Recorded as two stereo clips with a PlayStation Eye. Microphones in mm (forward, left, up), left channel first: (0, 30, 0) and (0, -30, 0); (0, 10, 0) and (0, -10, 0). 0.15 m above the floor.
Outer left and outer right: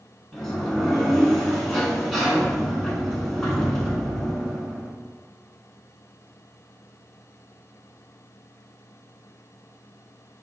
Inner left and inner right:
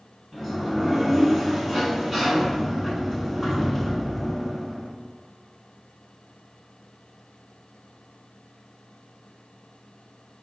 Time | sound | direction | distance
0.3 | a sliding door | 10° left (ahead or behind) | 0.8 m